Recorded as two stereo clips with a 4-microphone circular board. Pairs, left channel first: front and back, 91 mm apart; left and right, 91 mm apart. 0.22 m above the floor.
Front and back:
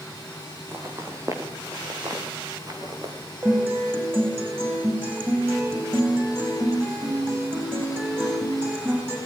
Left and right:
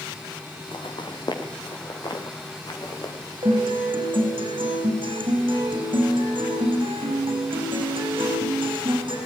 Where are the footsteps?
120° left, 4.5 m; by 3.1 s 135° left, 5 m.